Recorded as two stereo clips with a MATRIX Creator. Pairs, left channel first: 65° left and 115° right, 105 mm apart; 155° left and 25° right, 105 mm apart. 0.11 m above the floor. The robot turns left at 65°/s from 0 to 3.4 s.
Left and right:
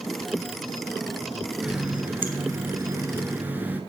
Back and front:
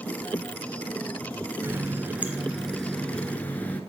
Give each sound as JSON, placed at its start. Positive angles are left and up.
{"t": 1.6, "sound": "a running tap", "azimuth_deg": -40, "distance_m": 0.9}